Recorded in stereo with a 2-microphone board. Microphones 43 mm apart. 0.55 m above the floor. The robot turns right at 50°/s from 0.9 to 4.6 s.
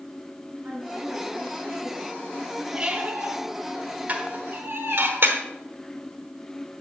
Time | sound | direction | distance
0.6 | a woman speaking | 50° right | 3.5 m
2.7 | a squeak | 20° right (ahead or behind) | 1.4 m
4.1 | dishes clattering | 35° right (ahead or behind) | 1.0 m